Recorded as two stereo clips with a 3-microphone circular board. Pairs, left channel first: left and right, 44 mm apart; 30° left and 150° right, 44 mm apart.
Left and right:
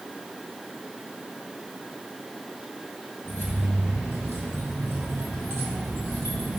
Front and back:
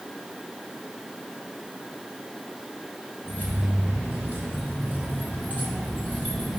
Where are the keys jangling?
115° right, 2.5 m; by 6.6 s 95° right, 4 m.